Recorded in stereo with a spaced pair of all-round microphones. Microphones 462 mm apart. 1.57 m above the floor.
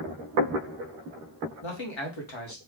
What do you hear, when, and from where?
1.6 s a man speaking: 75° left (ahead or behind), 1.2 m